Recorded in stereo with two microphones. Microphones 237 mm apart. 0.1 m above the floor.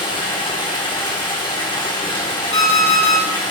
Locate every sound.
0.0 s running water: 20° left (ahead or behind), 1.3 m
2.5 s an alarm clock: 60° left (ahead or behind), 1.3 m